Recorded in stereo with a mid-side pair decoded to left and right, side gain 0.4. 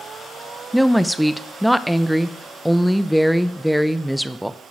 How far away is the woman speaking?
About 0.7 m.